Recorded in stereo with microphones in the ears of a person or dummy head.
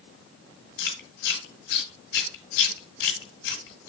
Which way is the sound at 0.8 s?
55° left (ahead or behind).